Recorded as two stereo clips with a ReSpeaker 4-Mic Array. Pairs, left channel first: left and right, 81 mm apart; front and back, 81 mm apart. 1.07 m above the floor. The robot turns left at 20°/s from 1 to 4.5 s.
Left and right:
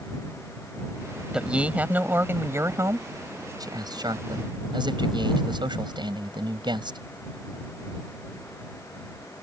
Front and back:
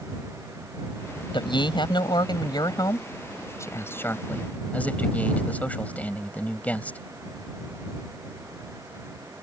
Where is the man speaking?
10° right; by 7.0 s 70° right.